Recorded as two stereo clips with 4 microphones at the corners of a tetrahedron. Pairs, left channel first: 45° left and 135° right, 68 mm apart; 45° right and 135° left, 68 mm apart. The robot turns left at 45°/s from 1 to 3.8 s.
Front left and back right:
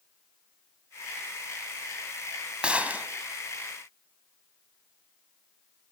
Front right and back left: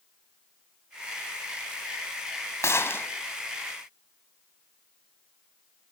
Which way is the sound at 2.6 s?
65° right.